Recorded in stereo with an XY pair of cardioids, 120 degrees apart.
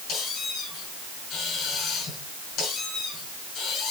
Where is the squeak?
70° left, 5.5 m.